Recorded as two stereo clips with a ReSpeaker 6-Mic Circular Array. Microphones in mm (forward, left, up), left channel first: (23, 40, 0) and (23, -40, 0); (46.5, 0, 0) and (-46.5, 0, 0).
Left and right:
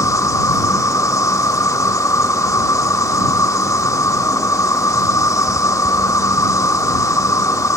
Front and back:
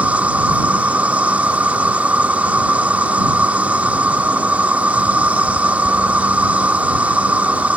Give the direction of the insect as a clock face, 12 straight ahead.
8 o'clock.